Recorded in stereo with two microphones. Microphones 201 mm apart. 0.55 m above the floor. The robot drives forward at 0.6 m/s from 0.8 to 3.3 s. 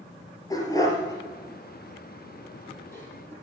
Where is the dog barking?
20° left (ahead or behind), 2.5 m; by 3.3 s 10° left (ahead or behind), 4 m.